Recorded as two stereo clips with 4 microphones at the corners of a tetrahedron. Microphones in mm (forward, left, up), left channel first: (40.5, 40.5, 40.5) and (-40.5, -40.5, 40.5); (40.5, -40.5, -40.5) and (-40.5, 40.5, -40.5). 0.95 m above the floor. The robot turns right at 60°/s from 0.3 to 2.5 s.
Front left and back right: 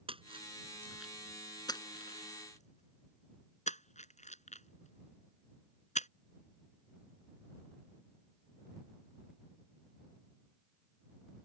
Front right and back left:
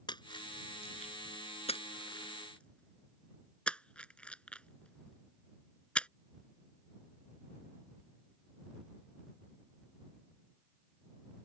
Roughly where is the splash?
Right.